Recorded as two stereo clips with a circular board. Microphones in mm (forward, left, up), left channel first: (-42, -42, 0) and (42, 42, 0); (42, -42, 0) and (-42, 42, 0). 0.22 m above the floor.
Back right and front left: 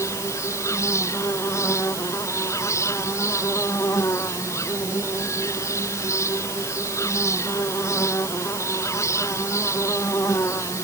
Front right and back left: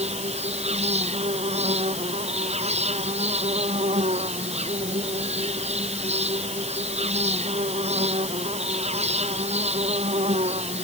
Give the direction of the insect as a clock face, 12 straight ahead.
7 o'clock.